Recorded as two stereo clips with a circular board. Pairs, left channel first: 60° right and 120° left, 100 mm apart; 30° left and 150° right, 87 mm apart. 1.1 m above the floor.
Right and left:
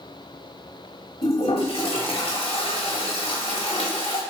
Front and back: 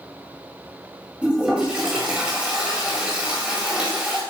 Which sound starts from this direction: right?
A toilet flushing, at 1.2 s.